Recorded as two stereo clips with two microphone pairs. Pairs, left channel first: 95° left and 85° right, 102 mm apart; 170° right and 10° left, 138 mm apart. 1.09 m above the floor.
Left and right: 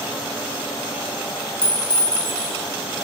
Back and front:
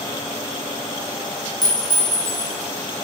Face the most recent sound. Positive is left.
turn(degrees=130)